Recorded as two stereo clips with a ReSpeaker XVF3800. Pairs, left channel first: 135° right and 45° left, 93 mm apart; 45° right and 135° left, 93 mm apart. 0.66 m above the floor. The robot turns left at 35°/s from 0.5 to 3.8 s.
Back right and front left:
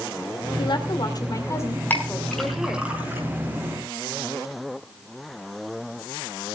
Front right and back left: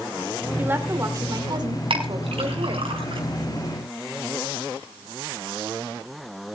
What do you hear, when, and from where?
0.6 s a woman speaking: 155° right, 2.5 m; by 2.9 s 125° left, 2.5 m
1.9 s a clink: 155° left, 4 m; by 3.2 s 110° left, 4 m